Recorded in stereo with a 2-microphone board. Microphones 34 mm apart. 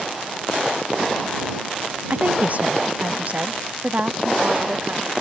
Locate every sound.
2.1 s a woman speaking: 50° right (ahead or behind); by 5.1 s 45° right (ahead or behind)